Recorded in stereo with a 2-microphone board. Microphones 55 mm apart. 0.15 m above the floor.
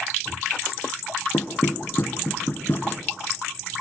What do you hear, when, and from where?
1.3 s knocking: 40° left (ahead or behind), 1.9 m